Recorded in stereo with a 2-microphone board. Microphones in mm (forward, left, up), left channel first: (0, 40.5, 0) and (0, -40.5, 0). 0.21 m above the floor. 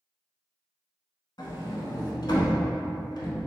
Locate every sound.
1.4 s a sliding door: 60° left (ahead or behind), 0.7 m